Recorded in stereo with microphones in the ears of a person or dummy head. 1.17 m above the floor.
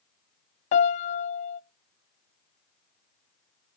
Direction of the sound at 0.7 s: 35° left (ahead or behind).